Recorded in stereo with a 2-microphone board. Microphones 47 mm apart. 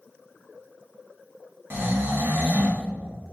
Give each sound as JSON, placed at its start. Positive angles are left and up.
{"t": 1.7, "sound": "snoring", "side_deg": -50, "distance_m": 0.9}